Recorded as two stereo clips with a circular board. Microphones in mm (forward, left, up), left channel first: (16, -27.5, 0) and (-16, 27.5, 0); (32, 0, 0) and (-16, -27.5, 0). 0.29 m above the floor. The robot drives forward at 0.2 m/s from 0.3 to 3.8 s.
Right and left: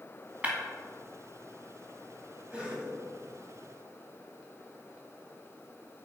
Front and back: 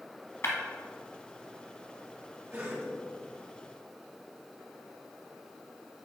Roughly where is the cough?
Behind.